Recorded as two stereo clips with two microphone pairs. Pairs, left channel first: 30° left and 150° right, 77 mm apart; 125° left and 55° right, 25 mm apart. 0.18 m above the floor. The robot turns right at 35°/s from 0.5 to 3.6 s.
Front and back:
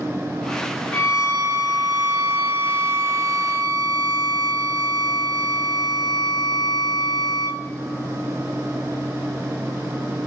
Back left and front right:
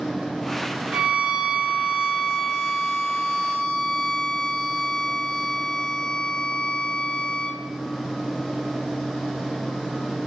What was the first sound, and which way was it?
A violin, 30° right.